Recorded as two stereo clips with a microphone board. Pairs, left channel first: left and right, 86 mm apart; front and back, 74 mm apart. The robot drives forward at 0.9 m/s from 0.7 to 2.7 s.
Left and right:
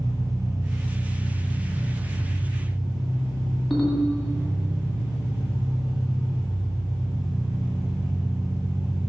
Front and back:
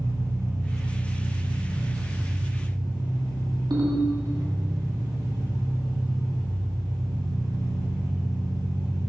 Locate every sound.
0.0 s an engine running: 135° right, 1.9 m; by 9.1 s 160° right, 3.5 m
3.7 s a ringtone: 175° left, 2 m